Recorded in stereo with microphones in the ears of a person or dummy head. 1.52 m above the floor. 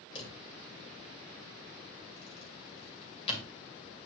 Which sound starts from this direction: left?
A drawer, at 0.1 s.